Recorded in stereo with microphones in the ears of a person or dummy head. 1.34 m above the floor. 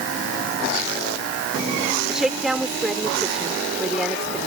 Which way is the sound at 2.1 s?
Centre (ahead or behind).